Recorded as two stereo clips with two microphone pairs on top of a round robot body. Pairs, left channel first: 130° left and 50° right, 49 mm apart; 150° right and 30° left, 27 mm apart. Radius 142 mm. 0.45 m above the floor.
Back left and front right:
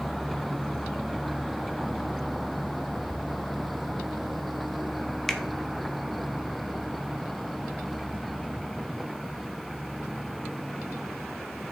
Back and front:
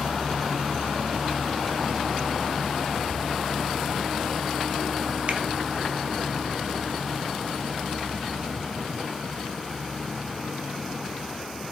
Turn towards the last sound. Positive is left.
turn(degrees=55)